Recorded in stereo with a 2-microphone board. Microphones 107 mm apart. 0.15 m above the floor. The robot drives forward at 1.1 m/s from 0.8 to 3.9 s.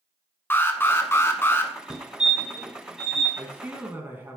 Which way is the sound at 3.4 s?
20° right (ahead or behind).